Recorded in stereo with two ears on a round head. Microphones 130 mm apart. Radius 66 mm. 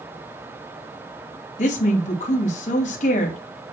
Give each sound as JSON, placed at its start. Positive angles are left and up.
{"t": 1.6, "sound": "a woman speaking", "side_deg": 60, "distance_m": 3.0}